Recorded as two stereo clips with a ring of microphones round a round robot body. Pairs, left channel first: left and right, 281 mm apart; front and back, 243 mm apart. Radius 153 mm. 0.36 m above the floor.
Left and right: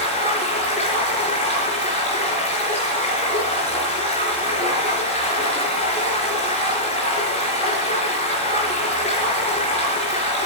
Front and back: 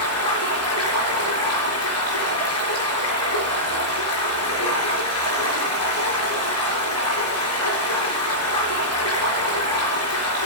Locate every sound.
0.0 s running water: 20° left, 4 m